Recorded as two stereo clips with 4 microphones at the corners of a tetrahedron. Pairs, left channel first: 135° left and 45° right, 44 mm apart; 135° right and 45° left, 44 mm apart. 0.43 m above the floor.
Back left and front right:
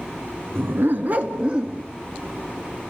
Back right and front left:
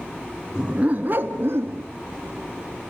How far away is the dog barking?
About 1.4 m.